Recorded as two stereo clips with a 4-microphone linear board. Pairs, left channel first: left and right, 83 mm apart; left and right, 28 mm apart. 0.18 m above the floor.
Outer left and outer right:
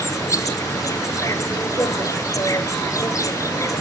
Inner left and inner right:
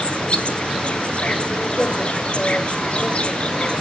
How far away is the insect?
About 1.0 m.